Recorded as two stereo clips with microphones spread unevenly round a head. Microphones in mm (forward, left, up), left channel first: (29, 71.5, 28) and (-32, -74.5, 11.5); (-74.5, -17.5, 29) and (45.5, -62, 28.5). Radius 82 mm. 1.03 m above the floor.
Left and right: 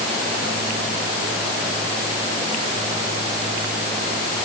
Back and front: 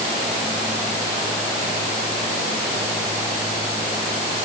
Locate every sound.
Only background noise.